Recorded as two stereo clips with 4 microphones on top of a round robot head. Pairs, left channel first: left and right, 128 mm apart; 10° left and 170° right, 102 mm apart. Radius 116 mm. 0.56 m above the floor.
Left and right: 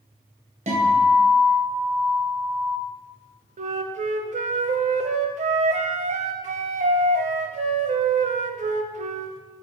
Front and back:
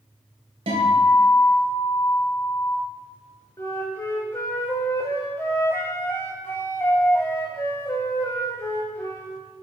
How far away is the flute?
About 0.5 m.